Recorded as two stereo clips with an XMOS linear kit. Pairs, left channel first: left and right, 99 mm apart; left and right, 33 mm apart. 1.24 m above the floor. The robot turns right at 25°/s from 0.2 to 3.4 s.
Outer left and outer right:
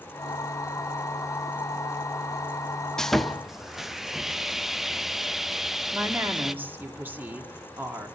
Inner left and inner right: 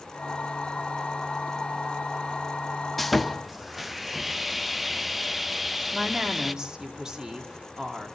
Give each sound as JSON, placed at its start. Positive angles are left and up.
{"t": 3.0, "sound": "sawing", "side_deg": 5, "distance_m": 0.6}
{"t": 5.9, "sound": "a woman speaking", "side_deg": -20, "distance_m": 2.0}